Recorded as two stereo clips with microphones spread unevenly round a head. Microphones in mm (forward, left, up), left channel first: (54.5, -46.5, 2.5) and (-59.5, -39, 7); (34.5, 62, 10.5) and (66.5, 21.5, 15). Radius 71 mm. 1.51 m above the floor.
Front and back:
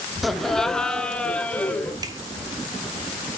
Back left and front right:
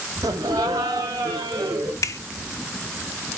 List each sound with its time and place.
0.2 s laughter: 95° right, 0.7 m; by 1.9 s 80° right, 1.6 m
2.0 s a finger snap: 110° left, 0.6 m